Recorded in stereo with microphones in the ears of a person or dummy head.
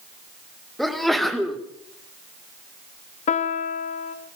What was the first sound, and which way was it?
A sneeze, centre (ahead or behind).